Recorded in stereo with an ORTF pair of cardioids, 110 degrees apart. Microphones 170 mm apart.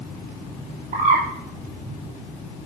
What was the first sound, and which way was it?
A bird, 50° right.